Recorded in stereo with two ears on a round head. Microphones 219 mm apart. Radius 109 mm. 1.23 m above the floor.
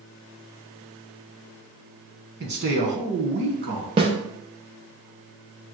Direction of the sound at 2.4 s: 45° right (ahead or behind).